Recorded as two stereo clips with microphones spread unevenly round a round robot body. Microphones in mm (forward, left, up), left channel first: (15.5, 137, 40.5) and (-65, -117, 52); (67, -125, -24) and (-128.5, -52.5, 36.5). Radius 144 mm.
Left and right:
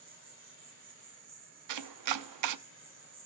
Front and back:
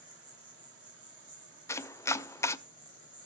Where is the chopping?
95° right, 0.7 m.